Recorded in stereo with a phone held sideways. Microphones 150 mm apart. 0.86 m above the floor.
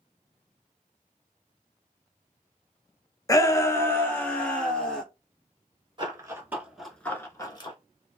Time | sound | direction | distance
3.3 | a shout | 25° left (ahead or behind) | 0.5 m
6.0 | running footsteps | 30° right (ahead or behind) | 0.9 m